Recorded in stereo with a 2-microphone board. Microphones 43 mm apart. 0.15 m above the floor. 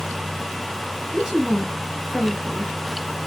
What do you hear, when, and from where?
1.1 s a woman speaking: 10° right (ahead or behind), 3 m